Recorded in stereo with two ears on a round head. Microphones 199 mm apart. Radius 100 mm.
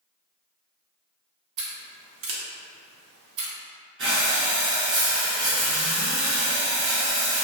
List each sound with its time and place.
1.6 s scissors: 70° right (ahead or behind), 0.6 m
4.0 s breathing: 55° right (ahead or behind), 0.9 m